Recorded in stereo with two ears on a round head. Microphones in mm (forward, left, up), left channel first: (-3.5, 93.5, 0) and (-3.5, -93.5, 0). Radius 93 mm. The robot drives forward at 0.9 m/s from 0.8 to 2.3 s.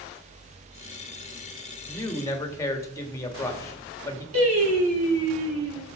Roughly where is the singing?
Right.